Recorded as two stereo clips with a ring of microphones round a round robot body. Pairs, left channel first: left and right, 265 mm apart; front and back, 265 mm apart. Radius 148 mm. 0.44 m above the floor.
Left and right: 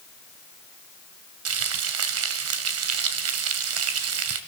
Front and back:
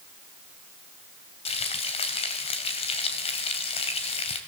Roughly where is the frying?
Right.